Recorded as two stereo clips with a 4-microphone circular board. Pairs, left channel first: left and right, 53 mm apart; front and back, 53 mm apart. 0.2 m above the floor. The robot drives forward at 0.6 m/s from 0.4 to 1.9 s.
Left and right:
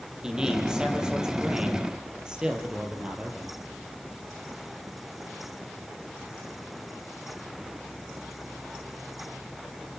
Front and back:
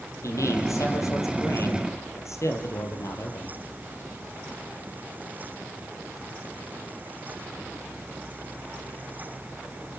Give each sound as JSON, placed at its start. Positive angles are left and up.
{"t": 0.2, "sound": "a man speaking", "azimuth_deg": -15, "distance_m": 5.5}